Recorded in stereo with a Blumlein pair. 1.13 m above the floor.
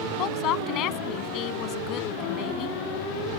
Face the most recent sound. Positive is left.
turn(degrees=35)